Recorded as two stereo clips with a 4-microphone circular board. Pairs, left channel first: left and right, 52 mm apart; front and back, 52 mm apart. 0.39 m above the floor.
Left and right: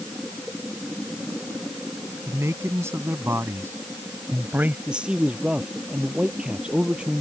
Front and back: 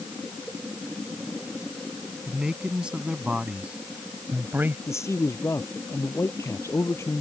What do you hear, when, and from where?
2.3 s a man speaking: 100° right; by 4.8 s 135° right
4.9 s a man speaking: 20° right